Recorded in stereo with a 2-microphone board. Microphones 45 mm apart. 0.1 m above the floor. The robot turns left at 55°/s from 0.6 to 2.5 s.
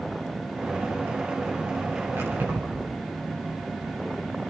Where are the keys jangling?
75° right (ahead or behind), 8.5 m; by 2.9 s 55° right (ahead or behind), 8.5 m.